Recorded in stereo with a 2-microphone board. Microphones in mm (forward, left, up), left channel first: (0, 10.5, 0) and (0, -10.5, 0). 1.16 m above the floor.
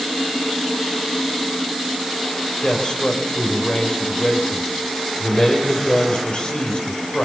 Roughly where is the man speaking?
Left.